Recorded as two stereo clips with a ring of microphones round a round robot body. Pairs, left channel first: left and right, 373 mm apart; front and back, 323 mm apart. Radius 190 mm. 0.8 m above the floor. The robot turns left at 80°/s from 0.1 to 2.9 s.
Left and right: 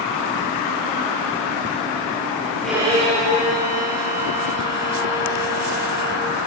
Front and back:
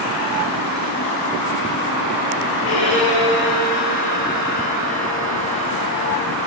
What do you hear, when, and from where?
2.6 s a violin: 5° left, 6 m; by 6.3 s 20° right, 6 m